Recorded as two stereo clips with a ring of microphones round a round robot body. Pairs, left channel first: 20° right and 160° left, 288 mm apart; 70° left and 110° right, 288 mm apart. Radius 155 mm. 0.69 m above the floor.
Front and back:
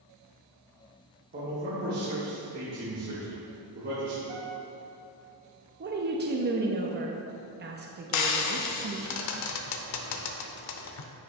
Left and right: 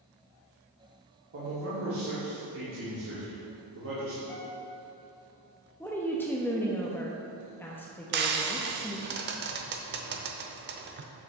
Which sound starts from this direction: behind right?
A man speaking, at 1.3 s.